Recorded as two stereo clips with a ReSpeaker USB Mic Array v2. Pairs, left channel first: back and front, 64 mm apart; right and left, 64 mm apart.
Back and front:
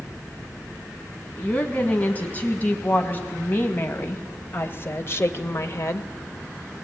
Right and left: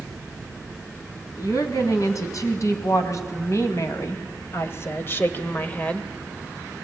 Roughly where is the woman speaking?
Behind right.